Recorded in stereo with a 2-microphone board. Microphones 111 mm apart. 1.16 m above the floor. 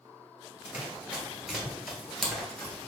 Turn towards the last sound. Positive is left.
turn(degrees=10)  # may be behind; listen again after turning